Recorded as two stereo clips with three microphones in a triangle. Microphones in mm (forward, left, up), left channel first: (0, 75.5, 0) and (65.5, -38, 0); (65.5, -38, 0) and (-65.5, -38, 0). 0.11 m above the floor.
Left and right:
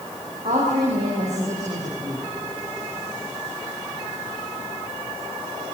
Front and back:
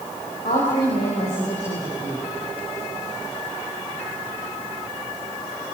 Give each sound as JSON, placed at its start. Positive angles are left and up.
{"t": 0.5, "sound": "a woman speaking", "azimuth_deg": -30, "distance_m": 8.5}